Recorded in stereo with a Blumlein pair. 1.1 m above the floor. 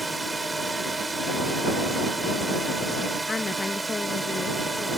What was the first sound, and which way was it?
A drone, 10° right.